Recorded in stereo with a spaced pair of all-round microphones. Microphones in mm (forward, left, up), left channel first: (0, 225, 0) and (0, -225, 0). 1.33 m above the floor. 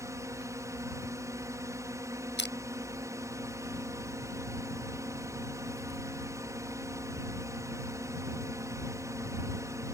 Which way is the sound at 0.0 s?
5° right (ahead or behind).